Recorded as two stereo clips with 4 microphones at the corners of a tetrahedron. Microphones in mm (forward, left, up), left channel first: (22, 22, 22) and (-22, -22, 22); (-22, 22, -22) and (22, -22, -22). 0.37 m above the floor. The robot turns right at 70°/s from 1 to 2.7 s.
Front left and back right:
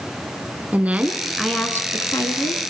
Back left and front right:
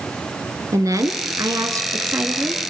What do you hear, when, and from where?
0.7 s a woman speaking: 70° right, 4 m; by 2.6 s 45° left, 4 m